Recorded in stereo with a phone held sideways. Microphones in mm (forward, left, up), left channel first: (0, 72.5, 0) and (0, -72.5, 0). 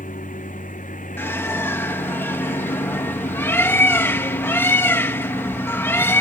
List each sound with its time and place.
0.0 s a lawn mower: 80° left; by 6.2 s 70° left (ahead or behind)
1.2 s a bird: 15° left (ahead or behind)